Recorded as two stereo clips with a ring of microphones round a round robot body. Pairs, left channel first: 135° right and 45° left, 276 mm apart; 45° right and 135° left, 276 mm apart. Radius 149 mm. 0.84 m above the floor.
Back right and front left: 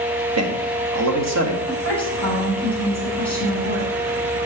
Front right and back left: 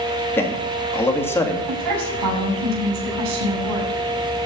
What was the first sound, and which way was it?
A man speaking, 35° left.